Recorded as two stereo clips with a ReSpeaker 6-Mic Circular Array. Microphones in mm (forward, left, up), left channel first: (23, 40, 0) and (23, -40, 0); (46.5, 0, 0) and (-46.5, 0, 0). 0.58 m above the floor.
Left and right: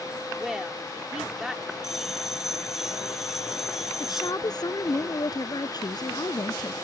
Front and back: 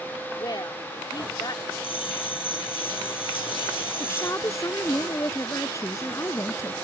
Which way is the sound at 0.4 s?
5° right.